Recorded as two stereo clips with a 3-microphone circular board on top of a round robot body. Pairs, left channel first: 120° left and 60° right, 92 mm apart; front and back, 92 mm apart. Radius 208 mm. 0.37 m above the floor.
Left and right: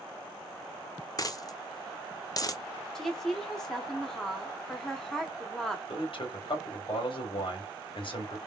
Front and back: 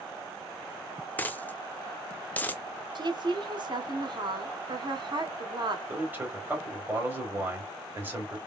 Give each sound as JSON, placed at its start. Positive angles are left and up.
{"t": 1.2, "sound": "a dropped coin", "azimuth_deg": 70, "distance_m": 0.9}
{"t": 3.0, "sound": "a woman speaking", "azimuth_deg": -160, "distance_m": 1.7}
{"t": 5.9, "sound": "a man speaking", "azimuth_deg": 115, "distance_m": 3.0}